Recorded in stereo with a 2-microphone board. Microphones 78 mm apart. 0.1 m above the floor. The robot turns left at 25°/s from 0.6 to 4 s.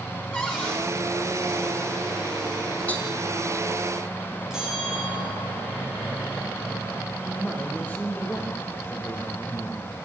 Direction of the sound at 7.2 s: 20° left (ahead or behind).